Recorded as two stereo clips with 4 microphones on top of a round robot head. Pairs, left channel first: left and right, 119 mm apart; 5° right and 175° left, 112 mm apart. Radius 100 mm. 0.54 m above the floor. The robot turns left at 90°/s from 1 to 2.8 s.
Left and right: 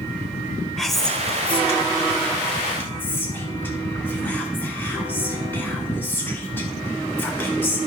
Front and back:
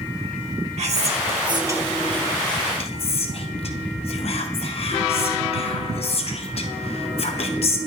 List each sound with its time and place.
0.8 s whispering: 175° left, 1.8 m; by 7.8 s 15° left, 1.8 m